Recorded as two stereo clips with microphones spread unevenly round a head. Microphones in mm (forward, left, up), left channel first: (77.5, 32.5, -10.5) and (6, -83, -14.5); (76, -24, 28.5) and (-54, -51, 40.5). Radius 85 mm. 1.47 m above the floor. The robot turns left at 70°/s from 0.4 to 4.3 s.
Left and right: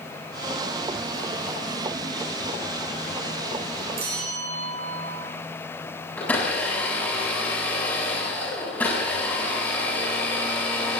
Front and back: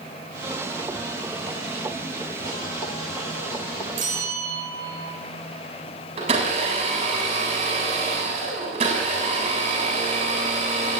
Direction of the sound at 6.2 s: 140° left.